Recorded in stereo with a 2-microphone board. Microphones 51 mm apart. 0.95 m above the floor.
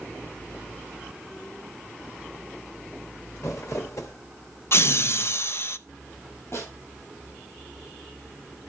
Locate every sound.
3.4 s crumpling: 70° left (ahead or behind), 1.3 m
4.7 s laughter: 55° left (ahead or behind), 0.6 m
6.5 s a snare drum: 60° left (ahead or behind), 7.5 m